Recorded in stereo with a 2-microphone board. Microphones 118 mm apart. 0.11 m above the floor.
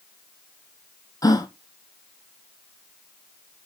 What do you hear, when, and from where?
1.2 s a gasp: 30° left (ahead or behind), 1.0 m